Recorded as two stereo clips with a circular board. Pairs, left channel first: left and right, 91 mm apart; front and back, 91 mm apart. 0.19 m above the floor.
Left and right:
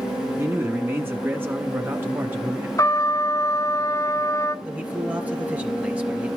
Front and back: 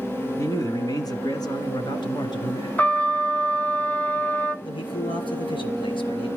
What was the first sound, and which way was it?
A man speaking, 40° right.